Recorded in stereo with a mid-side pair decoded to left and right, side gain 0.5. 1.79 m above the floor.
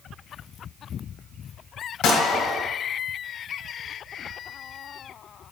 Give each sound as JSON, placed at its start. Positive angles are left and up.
{"t": 2.0, "sound": "a gunshot", "azimuth_deg": 70, "distance_m": 1.5}